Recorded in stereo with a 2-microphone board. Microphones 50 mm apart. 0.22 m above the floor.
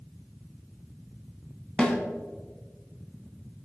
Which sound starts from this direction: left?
A snare drum, at 1.8 s.